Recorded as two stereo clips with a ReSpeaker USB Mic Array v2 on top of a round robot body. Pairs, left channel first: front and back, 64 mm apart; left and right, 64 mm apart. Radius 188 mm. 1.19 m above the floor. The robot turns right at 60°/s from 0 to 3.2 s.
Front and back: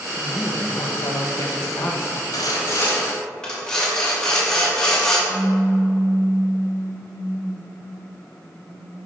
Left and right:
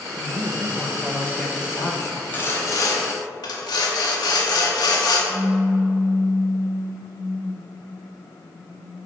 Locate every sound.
0.2 s a woman speaking: 55° right, 0.9 m; by 2.2 s 65° left, 0.9 m
2.3 s sawing: 25° left, 0.8 m; by 5.2 s 80° left, 0.8 m
5.3 s a pop: 135° right, 1.5 m